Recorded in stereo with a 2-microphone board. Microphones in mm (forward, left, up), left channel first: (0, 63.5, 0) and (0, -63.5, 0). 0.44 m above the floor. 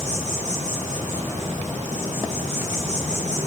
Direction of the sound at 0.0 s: 65° right (ahead or behind).